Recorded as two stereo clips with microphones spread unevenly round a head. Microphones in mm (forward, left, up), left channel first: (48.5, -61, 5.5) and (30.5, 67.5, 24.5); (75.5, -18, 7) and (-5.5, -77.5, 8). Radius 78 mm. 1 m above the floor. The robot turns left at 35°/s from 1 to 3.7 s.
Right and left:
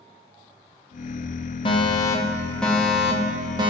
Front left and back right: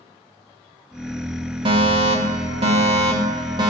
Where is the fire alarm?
125° right, 2.5 m; by 3.7 s 160° left, 2.5 m.